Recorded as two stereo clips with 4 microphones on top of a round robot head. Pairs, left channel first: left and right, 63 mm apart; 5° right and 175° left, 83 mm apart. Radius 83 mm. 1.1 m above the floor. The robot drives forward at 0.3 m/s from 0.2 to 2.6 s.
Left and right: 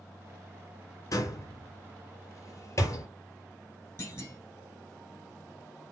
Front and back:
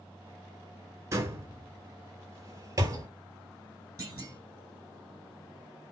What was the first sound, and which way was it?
A door slam, 125° left.